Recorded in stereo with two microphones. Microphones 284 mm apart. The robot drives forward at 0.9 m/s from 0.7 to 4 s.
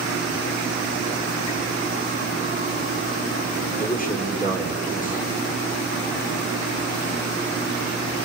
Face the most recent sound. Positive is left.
turn(degrees=30)  # may be behind; listen again after turning